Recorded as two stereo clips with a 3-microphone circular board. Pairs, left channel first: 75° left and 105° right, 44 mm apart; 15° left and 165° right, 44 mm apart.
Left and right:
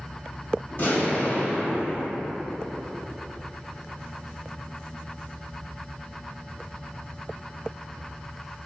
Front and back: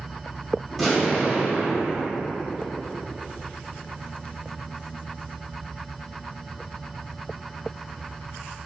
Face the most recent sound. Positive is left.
turn(degrees=105)